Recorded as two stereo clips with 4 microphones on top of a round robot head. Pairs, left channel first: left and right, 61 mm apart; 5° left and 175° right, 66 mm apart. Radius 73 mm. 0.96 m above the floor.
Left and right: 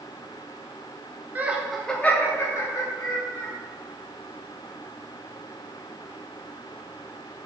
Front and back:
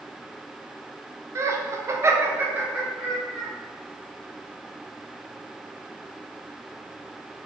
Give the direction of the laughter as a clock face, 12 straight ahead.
5 o'clock.